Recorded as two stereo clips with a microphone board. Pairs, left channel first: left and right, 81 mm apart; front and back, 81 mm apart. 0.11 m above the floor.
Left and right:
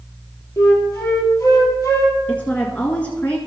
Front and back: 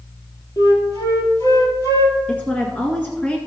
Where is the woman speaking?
50° left, 1.7 m.